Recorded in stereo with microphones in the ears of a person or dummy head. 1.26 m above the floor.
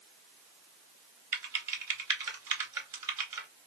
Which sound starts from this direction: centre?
Typing on a keyboard, at 1.3 s.